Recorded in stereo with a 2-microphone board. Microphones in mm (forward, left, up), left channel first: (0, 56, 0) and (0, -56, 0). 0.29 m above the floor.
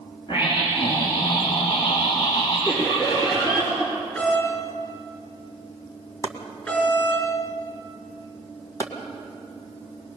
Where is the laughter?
40° left (ahead or behind), 5.5 m.